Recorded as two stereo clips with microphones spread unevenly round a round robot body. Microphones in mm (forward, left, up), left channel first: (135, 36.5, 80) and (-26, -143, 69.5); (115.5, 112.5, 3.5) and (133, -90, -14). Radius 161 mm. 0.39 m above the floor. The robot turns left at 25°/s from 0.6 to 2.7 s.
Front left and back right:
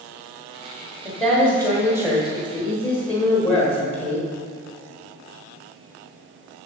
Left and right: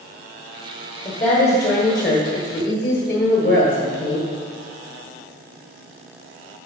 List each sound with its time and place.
1.1 s a woman speaking: 140° left, 1.3 m; by 4.3 s 100° left, 1.3 m